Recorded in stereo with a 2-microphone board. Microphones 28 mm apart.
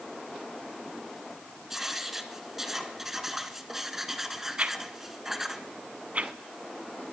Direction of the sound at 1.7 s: 15° right (ahead or behind).